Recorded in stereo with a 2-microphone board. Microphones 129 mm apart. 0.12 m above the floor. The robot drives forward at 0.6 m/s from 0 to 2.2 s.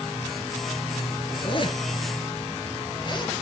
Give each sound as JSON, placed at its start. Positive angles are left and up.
{"t": 1.3, "sound": "a zipper", "side_deg": 45, "distance_m": 2.0}